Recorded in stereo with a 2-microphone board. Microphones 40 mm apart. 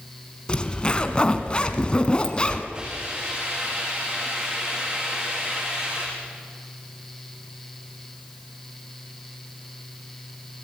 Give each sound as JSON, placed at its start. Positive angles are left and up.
{"t": 0.5, "sound": "a zipper", "side_deg": 25, "distance_m": 1.6}
{"t": 2.7, "sound": "a hiss", "side_deg": -30, "distance_m": 8.0}